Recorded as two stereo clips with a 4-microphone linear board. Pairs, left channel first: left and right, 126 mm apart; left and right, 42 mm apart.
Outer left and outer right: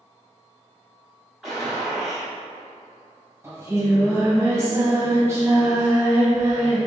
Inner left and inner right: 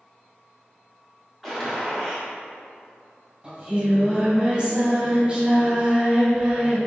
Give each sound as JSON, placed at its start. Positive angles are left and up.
{"t": 1.4, "sound": "a gunshot", "side_deg": 0, "distance_m": 1.7}
{"t": 3.4, "sound": "singing", "side_deg": -20, "distance_m": 1.2}